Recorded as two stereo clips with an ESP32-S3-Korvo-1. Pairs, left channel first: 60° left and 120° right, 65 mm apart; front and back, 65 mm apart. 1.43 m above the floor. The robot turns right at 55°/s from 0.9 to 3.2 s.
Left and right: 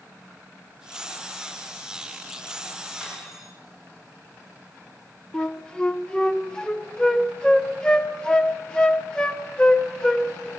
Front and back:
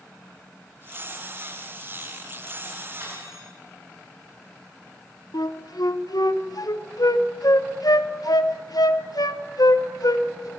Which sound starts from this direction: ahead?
A flute, at 5.3 s.